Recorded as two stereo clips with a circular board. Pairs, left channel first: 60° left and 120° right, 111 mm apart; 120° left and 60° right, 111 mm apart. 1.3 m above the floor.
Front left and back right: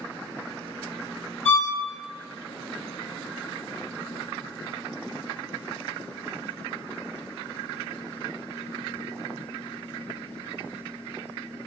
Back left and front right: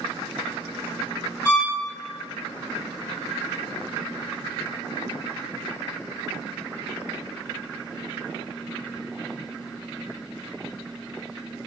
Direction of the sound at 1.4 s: 40° left.